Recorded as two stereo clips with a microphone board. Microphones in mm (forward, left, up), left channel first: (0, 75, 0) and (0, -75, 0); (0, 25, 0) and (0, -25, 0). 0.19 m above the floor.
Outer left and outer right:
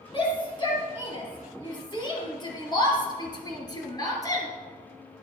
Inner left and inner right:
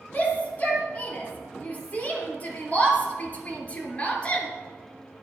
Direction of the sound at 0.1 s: 30° left (ahead or behind).